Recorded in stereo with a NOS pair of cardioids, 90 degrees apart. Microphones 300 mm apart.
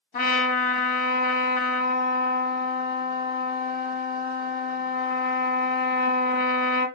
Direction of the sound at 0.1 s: 30° left.